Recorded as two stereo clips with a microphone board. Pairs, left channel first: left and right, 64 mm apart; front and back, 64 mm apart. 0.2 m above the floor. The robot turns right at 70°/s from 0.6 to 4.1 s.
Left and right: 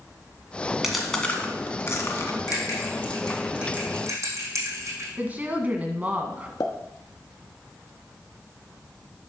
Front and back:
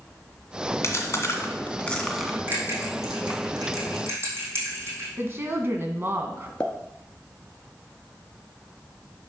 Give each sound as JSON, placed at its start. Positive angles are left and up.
{"t": 0.8, "sound": "chewing", "azimuth_deg": -5, "distance_m": 1.7}
{"t": 2.5, "sound": "a bell", "azimuth_deg": 115, "distance_m": 3.0}
{"t": 5.2, "sound": "a woman speaking", "azimuth_deg": -145, "distance_m": 1.6}
{"t": 6.6, "sound": "a pop", "azimuth_deg": 75, "distance_m": 1.3}